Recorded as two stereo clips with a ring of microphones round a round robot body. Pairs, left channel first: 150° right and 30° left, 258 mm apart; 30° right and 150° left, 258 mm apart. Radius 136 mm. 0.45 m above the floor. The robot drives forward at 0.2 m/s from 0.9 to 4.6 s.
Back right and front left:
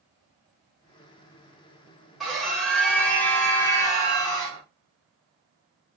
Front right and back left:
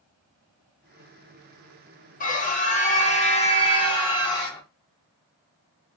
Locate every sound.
2.2 s a scream: 60° right, 1.5 m; by 4.6 s 90° right, 1.4 m